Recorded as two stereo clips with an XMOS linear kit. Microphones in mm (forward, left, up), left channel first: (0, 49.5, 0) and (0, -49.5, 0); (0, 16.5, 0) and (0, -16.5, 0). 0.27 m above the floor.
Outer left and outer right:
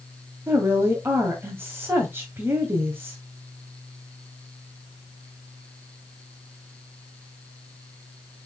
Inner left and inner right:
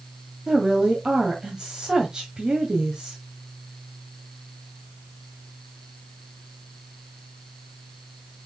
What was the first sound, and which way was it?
A woman speaking, 20° right (ahead or behind).